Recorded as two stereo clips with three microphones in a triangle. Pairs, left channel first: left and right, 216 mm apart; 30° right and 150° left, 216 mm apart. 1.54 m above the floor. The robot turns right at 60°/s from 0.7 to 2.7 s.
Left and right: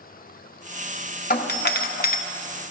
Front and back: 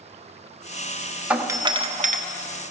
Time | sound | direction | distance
1.3 | a doorbell | 65° left | 1.1 m